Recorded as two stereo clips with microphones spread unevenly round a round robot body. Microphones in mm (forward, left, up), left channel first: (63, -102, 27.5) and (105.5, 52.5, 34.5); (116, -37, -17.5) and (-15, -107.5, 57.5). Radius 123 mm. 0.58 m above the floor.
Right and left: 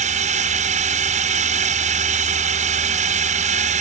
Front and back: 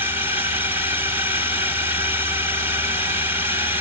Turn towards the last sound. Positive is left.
turn(degrees=110)